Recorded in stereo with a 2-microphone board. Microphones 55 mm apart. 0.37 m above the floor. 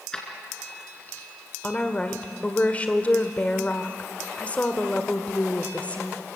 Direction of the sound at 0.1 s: 20° left (ahead or behind).